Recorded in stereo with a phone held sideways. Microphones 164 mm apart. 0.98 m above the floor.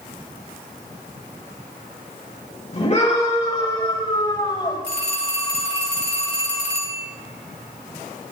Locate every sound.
2.7 s a scream: 45° left (ahead or behind), 4.5 m; by 4.8 s 30° left (ahead or behind), 5 m
4.8 s a phone ringing: 85° left, 4.5 m